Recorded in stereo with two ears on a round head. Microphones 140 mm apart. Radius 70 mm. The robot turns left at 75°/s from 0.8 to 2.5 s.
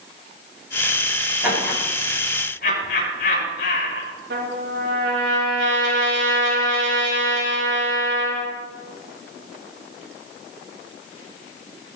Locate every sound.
1.4 s laughter: 15° right (ahead or behind), 9 m; by 4.1 s 60° left (ahead or behind), 9 m
4.3 s a trumpet: 80° right, 7.5 m